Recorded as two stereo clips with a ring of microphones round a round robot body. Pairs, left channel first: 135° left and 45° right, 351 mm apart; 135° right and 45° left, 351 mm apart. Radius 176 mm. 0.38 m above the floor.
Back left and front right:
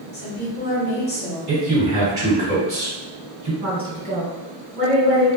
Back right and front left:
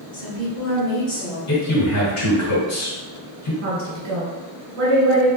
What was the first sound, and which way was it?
A woman speaking, 160° left.